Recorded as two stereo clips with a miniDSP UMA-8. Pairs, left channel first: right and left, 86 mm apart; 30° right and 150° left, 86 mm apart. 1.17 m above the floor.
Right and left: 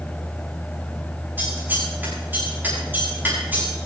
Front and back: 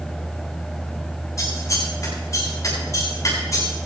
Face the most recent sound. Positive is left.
turn(degrees=20)